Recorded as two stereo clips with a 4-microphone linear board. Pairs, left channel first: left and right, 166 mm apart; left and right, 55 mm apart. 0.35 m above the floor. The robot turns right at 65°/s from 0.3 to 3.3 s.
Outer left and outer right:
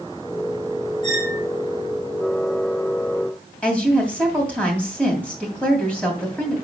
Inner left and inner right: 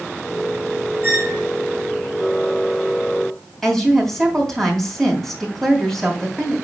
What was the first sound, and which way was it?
A squeak, 45° right (ahead or behind).